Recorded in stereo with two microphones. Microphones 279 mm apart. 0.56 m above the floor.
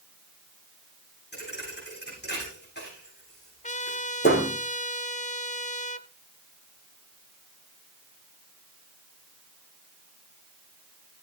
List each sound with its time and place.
1.3 s a thud: 40° left (ahead or behind), 9.5 m
3.6 s a trumpet: 30° left (ahead or behind), 0.9 m